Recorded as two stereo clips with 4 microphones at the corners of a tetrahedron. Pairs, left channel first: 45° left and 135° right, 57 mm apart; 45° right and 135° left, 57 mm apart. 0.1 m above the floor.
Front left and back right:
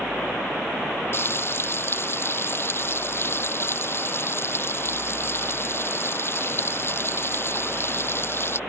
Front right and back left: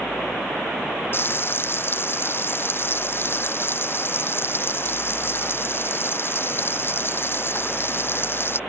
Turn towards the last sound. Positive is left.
turn(degrees=0)